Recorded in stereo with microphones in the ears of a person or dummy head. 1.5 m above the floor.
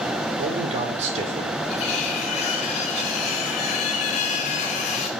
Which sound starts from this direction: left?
Cutlery clinking, at 1.7 s.